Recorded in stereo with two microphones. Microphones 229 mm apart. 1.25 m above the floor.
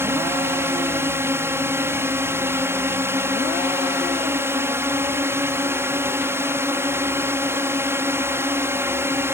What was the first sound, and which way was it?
A drone, 10° right (ahead or behind).